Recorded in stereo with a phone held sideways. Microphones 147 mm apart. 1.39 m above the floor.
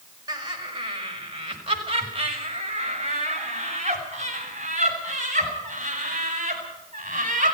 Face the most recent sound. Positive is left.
turn(degrees=-60)  # may be behind; listen again after turning